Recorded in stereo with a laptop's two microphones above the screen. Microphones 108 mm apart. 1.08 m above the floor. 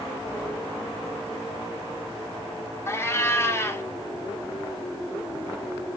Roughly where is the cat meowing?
Left.